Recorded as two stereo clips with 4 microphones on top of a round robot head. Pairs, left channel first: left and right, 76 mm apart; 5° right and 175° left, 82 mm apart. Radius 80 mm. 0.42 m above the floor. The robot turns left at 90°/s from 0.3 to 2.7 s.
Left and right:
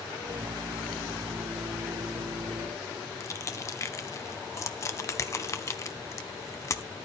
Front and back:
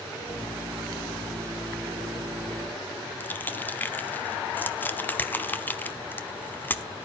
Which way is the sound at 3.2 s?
55° left.